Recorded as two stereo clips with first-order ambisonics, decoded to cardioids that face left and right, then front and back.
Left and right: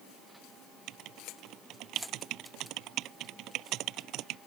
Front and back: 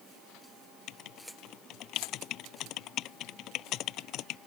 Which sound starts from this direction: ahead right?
Writing, at 0.9 s.